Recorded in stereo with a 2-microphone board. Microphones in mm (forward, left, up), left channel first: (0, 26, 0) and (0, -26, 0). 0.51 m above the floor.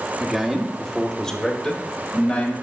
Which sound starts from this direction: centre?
A man speaking, at 0.2 s.